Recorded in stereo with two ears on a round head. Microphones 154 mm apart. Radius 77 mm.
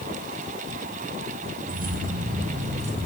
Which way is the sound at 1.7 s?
55° right (ahead or behind).